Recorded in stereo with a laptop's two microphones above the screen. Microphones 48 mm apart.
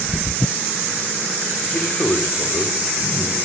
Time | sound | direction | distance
1.7 | a man speaking | 40° left (ahead or behind) | 3.5 m